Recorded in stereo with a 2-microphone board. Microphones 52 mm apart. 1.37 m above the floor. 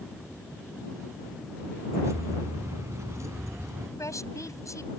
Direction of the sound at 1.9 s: 65° right (ahead or behind).